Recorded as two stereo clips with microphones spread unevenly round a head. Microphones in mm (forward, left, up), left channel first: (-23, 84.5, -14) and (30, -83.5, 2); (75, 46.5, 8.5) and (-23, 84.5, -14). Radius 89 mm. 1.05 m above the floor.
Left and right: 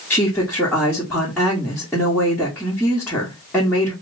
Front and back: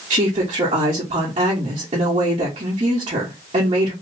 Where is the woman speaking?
170° right, 1.2 m.